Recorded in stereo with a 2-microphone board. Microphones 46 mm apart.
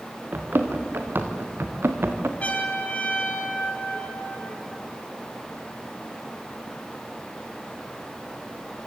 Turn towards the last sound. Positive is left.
turn(degrees=30)  # may be behind; listen again after turning